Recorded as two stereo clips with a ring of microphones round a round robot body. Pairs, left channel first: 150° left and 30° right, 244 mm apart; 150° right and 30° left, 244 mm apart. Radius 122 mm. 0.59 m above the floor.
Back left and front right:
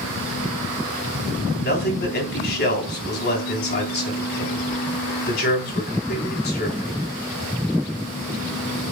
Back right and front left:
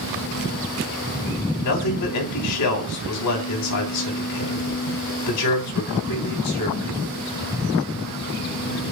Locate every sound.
1.6 s a man speaking: 165° right, 3.5 m